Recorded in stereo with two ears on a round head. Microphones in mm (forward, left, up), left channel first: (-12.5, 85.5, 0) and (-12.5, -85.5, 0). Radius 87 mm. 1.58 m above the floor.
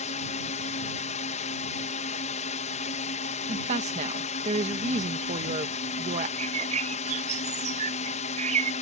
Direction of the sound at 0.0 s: 35° left (ahead or behind).